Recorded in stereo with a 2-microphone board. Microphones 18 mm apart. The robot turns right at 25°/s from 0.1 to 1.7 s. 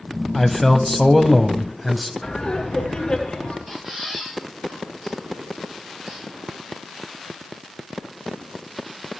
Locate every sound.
0.3 s a man speaking: 10° left (ahead or behind), 1.0 m; by 2.1 s 5° right (ahead or behind), 1.0 m
2.2 s laughter: 45° left (ahead or behind), 1.8 m
3.7 s a squeak: 20° right (ahead or behind), 9.5 m